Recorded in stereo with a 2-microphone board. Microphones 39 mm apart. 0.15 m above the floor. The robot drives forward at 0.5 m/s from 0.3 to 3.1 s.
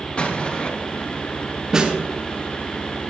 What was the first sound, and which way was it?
An explosion, 35° left (ahead or behind).